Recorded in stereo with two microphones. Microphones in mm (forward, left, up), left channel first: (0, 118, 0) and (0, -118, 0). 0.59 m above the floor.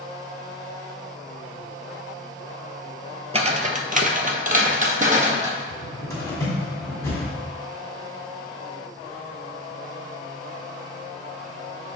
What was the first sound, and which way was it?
Footsteps, 25° right (ahead or behind).